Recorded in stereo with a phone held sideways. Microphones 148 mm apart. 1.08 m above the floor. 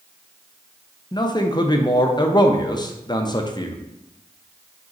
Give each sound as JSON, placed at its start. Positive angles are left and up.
{"t": 1.1, "sound": "a man speaking", "side_deg": 30, "distance_m": 0.5}